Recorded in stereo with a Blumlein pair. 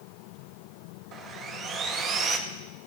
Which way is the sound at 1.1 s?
25° right.